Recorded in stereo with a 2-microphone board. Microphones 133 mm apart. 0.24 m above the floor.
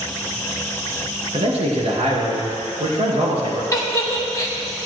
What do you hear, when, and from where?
1.3 s a man speaking: 60° right (ahead or behind), 3.5 m
3.7 s a giggle: 25° left (ahead or behind), 0.9 m